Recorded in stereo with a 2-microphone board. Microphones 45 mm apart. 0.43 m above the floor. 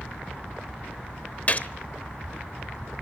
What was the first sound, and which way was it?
A gunshot, 35° left (ahead or behind).